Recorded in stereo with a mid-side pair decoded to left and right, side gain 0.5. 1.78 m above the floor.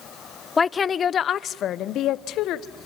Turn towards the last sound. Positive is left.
turn(degrees=75)